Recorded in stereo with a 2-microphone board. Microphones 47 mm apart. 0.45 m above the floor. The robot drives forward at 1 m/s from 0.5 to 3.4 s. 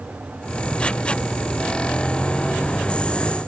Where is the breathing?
I don't hear breathing.